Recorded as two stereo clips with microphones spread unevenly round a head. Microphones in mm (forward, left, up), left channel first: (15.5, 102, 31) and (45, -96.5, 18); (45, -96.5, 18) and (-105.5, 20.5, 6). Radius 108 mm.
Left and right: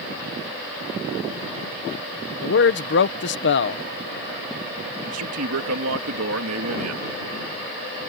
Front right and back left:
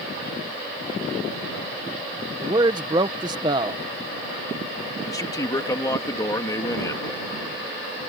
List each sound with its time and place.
2.4 s a man speaking: 70° left
5.0 s a man speaking: 110° right